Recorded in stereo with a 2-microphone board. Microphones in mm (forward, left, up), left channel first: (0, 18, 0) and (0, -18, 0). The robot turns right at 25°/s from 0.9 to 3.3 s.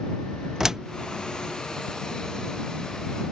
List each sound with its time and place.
0.6 s a door slam: 10° right (ahead or behind)